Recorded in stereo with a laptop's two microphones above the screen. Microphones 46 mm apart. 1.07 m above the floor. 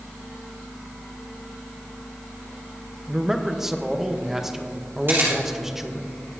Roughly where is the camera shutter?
Right.